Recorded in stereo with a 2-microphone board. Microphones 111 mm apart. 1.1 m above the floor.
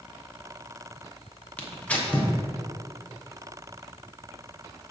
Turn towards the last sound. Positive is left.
turn(degrees=10)  # may be behind; listen again after turning